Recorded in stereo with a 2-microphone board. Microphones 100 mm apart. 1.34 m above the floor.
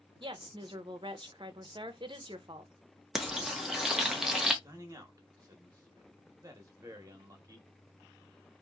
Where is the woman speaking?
55° right (ahead or behind), 0.6 m.